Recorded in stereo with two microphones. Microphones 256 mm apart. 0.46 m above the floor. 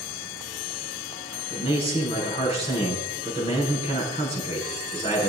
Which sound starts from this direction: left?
A man speaking, at 1.5 s.